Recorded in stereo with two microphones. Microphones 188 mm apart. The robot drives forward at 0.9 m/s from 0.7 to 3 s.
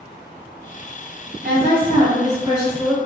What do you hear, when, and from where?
1.4 s a woman speaking: 50° right (ahead or behind), 1.3 m; by 3.0 s 30° right (ahead or behind), 2 m